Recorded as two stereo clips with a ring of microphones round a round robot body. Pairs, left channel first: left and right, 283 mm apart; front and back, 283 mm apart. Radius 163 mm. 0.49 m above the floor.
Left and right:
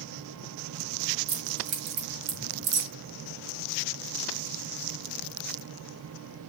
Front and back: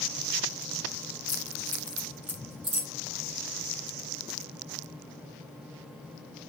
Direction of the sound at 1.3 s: 75° right.